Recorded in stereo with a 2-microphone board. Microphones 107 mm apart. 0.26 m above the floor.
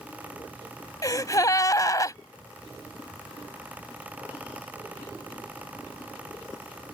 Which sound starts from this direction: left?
A gasp, at 1.0 s.